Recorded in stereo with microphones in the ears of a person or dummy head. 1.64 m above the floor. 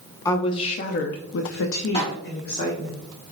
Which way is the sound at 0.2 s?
20° left (ahead or behind).